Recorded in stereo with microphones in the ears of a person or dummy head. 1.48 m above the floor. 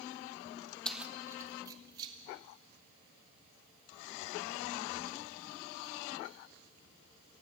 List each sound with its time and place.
0.8 s keys jangling: 5° left (ahead or behind), 0.6 m; by 6.4 s 30° right (ahead or behind), 8 m